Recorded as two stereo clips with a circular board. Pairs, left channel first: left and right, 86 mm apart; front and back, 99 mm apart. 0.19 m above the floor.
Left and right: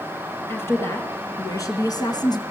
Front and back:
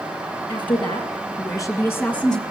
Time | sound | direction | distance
0.5 | a woman speaking | 30° left | 3.5 m